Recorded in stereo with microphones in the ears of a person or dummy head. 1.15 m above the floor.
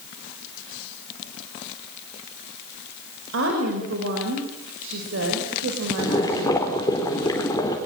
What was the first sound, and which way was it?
A woman speaking, 65° right (ahead or behind).